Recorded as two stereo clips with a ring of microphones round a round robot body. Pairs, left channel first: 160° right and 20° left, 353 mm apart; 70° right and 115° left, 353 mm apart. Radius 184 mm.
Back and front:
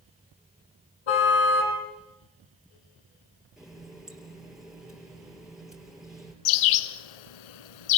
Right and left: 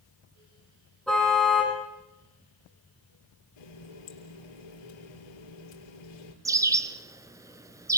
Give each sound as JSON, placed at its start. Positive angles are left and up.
{"t": 1.1, "sound": "a car horn", "azimuth_deg": -155, "distance_m": 9.5}
{"t": 3.6, "sound": "a running tap", "azimuth_deg": -65, "distance_m": 6.5}
{"t": 6.5, "sound": "a bird", "azimuth_deg": -165, "distance_m": 1.0}